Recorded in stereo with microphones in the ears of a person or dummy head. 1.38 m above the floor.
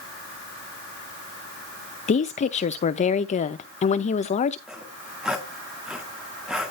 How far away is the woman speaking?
About 0.7 m.